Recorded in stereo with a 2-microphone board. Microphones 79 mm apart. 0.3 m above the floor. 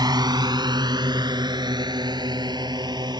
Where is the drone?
60° right (ahead or behind).